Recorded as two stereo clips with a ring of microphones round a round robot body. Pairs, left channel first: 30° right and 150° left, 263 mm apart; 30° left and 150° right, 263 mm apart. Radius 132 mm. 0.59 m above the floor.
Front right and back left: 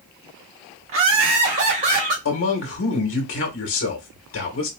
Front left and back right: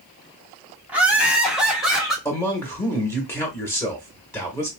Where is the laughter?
125° left, 1.4 m; by 2.1 s 120° left, 2 m.